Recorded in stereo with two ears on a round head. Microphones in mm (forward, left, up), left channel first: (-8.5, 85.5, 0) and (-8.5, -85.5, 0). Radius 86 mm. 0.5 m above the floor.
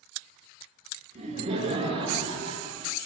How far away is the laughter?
About 5.5 m.